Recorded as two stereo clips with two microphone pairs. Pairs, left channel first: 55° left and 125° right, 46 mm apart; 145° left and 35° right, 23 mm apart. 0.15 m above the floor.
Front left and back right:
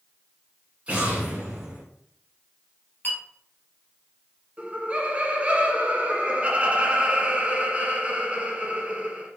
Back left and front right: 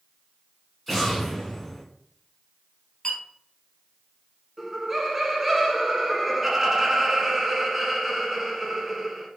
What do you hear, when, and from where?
0.9 s an explosion: 135° right, 1.9 m
3.0 s a clink: 100° left, 2 m
4.6 s laughter: 95° right, 1.2 m